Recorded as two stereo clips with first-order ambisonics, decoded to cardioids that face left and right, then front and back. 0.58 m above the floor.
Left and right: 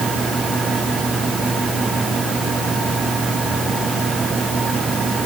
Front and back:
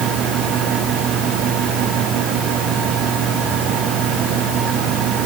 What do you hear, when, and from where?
Only background noise.